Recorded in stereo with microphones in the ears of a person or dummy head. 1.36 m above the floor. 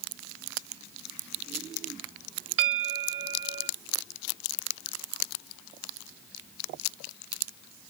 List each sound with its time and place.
2.6 s a bell: 80° right, 0.8 m